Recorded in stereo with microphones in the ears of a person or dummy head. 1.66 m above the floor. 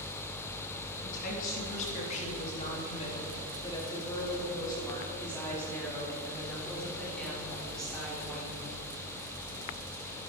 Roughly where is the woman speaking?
Left.